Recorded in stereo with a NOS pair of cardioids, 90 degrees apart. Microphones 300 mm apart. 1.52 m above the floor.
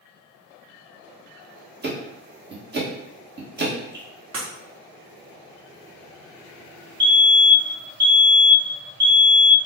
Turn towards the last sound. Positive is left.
turn(degrees=-40)